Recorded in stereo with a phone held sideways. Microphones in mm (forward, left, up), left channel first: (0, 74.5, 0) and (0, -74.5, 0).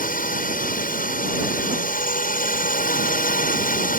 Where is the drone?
75° left (ahead or behind).